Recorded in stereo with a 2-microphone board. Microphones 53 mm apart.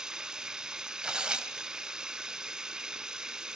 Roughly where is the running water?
Centre.